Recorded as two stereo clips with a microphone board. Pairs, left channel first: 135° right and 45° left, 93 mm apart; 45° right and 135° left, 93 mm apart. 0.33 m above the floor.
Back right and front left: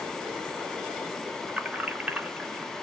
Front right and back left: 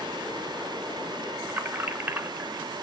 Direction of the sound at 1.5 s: 100° left.